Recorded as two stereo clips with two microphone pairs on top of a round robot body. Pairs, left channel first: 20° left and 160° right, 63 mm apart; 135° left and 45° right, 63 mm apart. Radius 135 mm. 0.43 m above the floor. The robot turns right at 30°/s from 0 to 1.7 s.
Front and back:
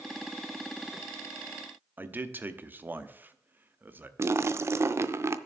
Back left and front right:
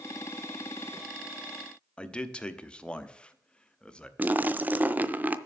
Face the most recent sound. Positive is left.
turn(degrees=-115)